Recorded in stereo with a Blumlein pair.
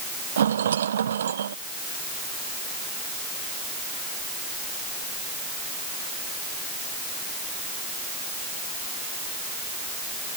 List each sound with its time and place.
0.4 s a rattle: 65° right